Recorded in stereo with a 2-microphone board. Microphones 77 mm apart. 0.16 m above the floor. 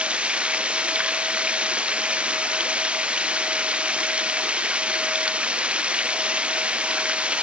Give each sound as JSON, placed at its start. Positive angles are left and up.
{"t": 0.0, "sound": "running water", "side_deg": -15}